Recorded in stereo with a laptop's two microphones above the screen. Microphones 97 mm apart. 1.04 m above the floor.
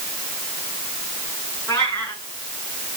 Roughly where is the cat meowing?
Left.